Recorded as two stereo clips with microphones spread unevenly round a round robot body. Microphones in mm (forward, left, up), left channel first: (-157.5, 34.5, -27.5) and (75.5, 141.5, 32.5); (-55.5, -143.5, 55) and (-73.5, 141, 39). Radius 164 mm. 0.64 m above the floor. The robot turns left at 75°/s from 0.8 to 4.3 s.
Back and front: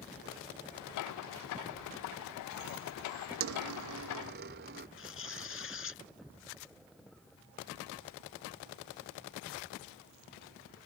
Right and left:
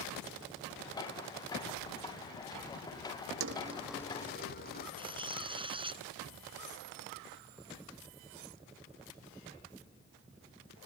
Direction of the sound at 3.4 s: 40° left.